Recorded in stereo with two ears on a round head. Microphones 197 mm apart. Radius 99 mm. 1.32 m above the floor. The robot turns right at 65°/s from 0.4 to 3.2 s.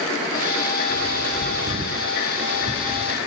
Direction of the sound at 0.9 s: 60° right (ahead or behind).